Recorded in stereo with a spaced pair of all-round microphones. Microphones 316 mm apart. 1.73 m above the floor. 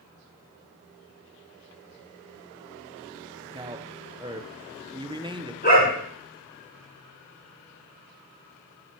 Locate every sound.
3.5 s a man speaking: 15° right (ahead or behind), 0.8 m
5.6 s a dog barking: 30° left (ahead or behind), 6.5 m